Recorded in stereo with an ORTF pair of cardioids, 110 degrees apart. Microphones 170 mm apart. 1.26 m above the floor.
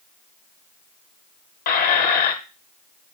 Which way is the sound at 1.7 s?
60° left.